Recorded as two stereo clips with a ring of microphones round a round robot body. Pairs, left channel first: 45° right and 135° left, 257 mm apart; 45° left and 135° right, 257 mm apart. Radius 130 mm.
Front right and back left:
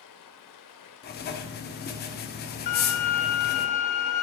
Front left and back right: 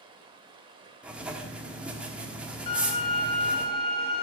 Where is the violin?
25° right, 0.8 m.